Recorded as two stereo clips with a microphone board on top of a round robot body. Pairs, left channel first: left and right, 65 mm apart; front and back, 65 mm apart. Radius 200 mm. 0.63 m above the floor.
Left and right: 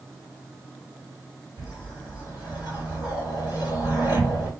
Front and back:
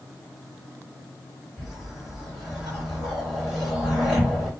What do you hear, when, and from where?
1.6 s a whoosh: 90° left, 1.8 m